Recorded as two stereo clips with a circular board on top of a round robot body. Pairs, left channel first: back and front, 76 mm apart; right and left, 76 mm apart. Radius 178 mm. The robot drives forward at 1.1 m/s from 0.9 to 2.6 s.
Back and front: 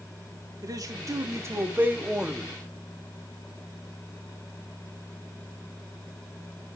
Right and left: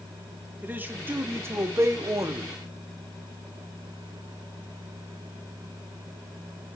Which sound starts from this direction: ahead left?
A man speaking, at 0.6 s.